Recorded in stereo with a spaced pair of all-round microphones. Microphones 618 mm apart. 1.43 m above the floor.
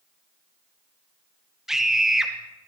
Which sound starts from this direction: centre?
A scream, at 1.7 s.